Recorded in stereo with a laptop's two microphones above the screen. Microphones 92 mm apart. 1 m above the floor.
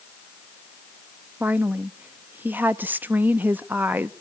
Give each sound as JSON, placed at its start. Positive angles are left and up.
{"t": 1.4, "sound": "a woman speaking", "side_deg": -20, "distance_m": 0.6}